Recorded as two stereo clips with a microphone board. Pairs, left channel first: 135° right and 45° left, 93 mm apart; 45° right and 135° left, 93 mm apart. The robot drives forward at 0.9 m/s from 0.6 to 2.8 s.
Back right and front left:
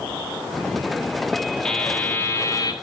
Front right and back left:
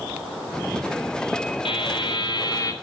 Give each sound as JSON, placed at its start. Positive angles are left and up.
{"t": 1.6, "sound": "a buzzer", "azimuth_deg": -55, "distance_m": 1.6}